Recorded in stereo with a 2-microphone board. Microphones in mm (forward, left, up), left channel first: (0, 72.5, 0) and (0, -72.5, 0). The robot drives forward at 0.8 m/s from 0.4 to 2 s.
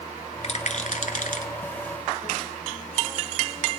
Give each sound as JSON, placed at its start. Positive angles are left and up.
{"t": 0.4, "sound": "a rattle", "side_deg": 50, "distance_m": 1.2}